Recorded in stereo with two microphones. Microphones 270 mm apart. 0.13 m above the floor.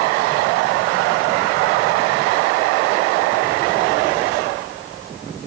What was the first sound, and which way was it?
Only background noise.